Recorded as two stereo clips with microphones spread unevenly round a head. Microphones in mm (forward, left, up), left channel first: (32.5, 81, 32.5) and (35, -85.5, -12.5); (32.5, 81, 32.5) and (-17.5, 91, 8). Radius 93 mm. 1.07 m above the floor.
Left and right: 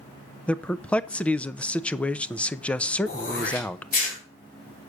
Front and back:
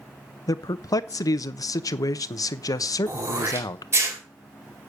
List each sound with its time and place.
0.5 s a man speaking: straight ahead, 0.7 m
3.1 s throat clearing: 140° left, 4 m